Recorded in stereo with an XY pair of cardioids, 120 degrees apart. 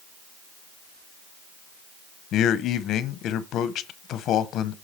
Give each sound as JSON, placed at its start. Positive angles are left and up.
{"t": 2.3, "sound": "a man speaking", "azimuth_deg": 65, "distance_m": 0.9}